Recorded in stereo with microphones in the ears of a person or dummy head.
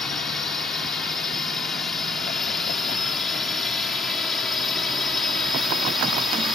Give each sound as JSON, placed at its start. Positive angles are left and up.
{"t": 0.0, "sound": "a drone", "side_deg": 0}